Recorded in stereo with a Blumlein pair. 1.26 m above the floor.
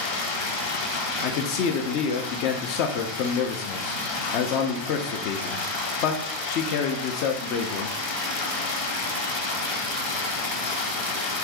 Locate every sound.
0.0 s running water: 55° left, 1.0 m
1.2 s a man speaking: 45° left, 0.6 m